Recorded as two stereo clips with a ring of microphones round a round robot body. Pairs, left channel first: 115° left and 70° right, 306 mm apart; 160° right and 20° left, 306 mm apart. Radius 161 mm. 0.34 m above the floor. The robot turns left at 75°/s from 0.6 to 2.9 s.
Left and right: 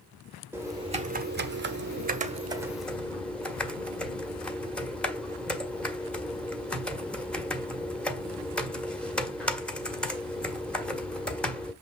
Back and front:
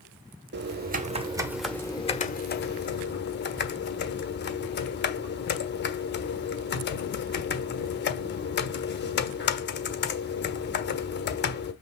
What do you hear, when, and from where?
0.5 s typing on a keyboard: 10° left, 1.5 m; by 11.7 s 165° right, 1.5 m